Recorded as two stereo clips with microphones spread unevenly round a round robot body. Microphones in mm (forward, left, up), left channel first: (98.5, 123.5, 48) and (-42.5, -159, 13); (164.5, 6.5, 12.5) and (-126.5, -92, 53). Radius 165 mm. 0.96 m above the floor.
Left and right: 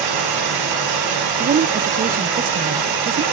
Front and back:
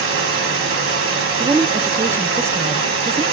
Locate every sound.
0.0 s running water: 110° right, 3 m
1.4 s a woman speaking: 75° right, 0.5 m